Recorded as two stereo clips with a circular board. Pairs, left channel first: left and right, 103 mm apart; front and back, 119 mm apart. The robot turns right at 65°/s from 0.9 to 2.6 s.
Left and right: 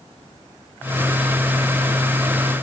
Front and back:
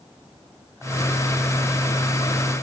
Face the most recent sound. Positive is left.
No sound to turn to.